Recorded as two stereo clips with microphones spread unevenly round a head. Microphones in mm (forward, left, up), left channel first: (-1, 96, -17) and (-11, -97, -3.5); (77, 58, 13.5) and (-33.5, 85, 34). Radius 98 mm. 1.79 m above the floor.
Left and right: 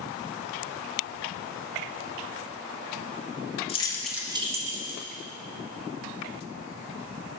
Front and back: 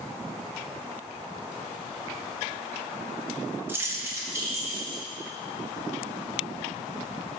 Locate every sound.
3.7 s keys jangling: 130° left, 1.2 m; by 5.0 s 120° right, 2 m